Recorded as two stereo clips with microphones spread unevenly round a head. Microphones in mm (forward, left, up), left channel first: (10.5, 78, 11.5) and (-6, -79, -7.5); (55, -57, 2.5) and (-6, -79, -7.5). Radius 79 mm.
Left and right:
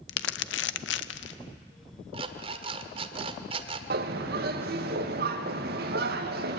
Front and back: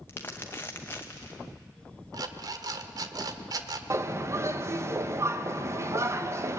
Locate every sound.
0.1 s crumpling: 95° left, 0.7 m
2.1 s an alarm clock: 150° right, 1.3 m
3.9 s a bird: 120° right, 1.5 m